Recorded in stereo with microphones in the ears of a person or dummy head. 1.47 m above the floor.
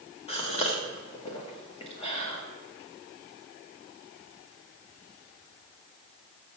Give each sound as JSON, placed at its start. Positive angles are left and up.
{"t": 0.3, "sound": "a gasp", "side_deg": 30, "distance_m": 1.2}